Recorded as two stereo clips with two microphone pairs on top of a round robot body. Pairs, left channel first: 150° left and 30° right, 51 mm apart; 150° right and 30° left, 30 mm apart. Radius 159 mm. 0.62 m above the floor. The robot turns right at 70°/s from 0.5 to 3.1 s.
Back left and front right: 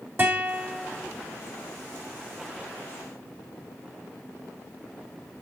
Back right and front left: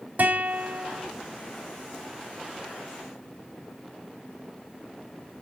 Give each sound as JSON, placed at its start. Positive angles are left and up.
{"t": 0.2, "sound": "a guitar", "azimuth_deg": 10, "distance_m": 2.5}